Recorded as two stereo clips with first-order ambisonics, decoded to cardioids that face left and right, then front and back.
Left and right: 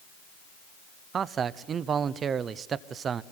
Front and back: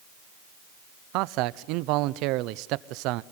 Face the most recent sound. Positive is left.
turn(degrees=-155)